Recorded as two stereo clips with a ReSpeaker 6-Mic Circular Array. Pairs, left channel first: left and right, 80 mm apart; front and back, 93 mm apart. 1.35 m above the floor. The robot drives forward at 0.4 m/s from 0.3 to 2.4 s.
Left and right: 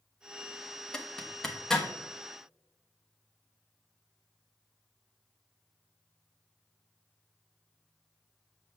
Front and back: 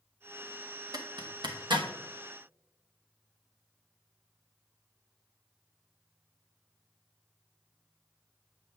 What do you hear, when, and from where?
0.9 s a zipper: 165° left, 0.7 m; by 1.9 s 170° left, 1.0 m